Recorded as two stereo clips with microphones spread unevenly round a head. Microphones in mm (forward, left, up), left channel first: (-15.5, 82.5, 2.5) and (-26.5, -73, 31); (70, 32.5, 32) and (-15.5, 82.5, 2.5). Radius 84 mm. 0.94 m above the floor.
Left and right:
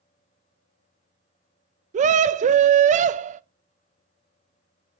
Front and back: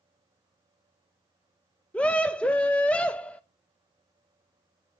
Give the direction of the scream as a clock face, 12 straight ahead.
4 o'clock.